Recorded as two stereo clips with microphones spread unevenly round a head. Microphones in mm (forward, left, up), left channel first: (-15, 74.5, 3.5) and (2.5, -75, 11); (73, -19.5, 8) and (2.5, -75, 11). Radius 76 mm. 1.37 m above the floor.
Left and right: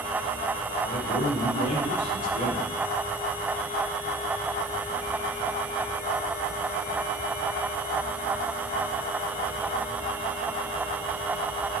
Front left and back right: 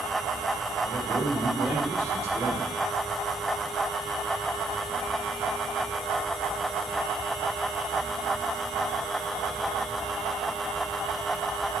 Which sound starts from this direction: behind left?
A man speaking, at 0.8 s.